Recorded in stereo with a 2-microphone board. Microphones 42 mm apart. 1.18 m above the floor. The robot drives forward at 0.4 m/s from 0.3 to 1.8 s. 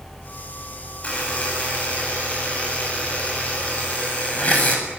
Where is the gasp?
No gasp in this recording.